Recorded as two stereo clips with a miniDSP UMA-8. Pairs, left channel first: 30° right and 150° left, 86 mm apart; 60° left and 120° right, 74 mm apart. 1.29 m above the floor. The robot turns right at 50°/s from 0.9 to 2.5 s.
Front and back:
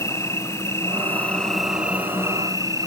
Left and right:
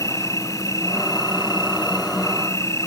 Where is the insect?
25° left; by 2.9 s 105° left.